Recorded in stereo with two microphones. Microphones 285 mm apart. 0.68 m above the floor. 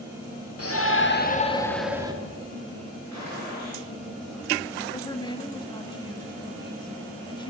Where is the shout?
60° left (ahead or behind), 1.6 m; by 2.1 s 15° right (ahead or behind), 1.3 m.